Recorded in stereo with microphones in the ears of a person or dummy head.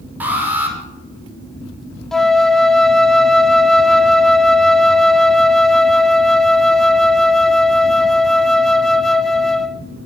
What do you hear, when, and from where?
0.2 s an alarm: 10° right (ahead or behind), 5 m
2.1 s a flute: 5° left (ahead or behind), 0.7 m